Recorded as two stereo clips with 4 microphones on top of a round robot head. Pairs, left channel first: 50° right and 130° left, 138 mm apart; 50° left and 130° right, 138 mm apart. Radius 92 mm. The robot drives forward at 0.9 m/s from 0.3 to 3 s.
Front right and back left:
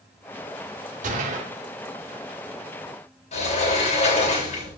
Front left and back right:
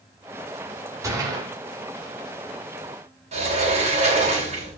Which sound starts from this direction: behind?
A gunshot, at 1.0 s.